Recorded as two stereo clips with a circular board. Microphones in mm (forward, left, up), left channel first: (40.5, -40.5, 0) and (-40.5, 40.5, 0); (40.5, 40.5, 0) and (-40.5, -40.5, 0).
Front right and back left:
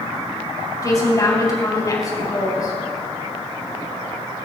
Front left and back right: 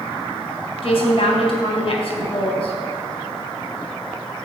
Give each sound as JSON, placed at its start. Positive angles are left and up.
{"t": 0.8, "sound": "a woman speaking", "azimuth_deg": 10, "distance_m": 3.5}